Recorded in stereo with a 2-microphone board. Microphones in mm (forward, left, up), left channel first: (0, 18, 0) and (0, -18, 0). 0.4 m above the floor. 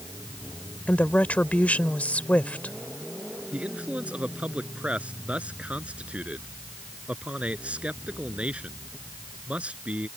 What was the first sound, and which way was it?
A woman speaking, 45° left (ahead or behind).